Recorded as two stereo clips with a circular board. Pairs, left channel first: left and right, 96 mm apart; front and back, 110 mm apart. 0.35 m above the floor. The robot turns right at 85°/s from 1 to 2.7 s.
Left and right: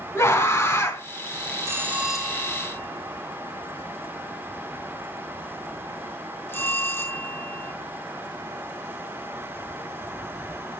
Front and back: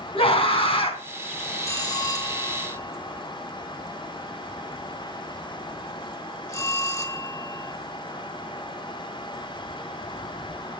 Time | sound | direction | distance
0.1 | a scream | 30° left | 3 m
1.6 | a bell | 50° right | 1.3 m